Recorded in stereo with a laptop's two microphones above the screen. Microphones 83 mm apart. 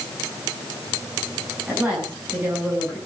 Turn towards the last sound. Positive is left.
turn(degrees=-25)  # may be behind; listen again after turning